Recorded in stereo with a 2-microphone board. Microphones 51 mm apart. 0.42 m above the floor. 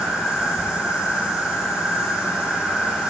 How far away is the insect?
About 10 m.